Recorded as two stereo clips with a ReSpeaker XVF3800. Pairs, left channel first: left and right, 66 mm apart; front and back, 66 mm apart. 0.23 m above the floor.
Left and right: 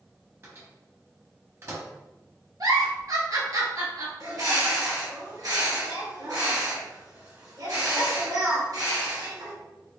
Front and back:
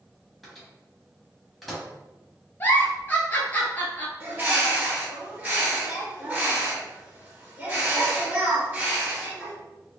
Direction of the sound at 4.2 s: 110° right.